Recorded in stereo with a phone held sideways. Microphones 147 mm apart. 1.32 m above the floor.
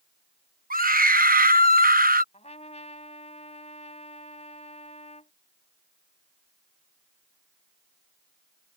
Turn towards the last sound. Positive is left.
turn(degrees=50)  # may be behind; listen again after turning